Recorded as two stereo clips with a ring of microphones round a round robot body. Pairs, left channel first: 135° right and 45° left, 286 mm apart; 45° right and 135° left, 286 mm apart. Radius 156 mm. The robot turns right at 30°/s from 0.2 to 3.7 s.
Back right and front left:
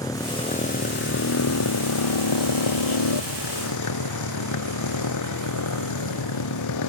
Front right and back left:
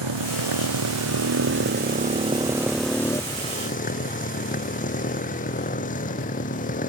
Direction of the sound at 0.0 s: 145° left.